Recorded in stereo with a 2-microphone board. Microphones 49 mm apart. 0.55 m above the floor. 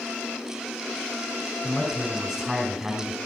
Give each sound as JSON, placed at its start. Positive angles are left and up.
{"t": 1.6, "sound": "a man speaking", "side_deg": -5, "distance_m": 2.5}